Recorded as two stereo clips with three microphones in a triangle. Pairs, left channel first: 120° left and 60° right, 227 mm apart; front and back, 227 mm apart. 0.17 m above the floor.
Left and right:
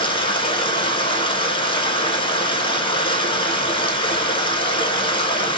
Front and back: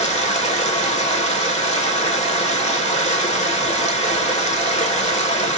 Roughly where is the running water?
Ahead left.